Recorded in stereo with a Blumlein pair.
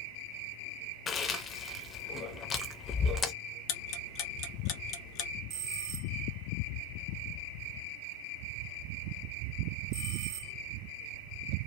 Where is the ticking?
35° left, 0.5 m.